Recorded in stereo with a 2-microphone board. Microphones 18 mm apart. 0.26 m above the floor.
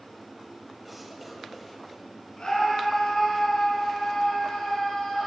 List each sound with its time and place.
0.8 s a cough: 5° right (ahead or behind), 1.0 m
2.4 s a scream: 60° left (ahead or behind), 3 m